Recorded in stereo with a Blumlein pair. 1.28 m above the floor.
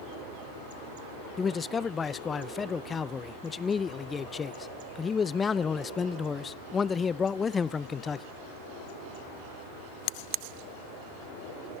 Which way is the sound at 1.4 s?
20° left.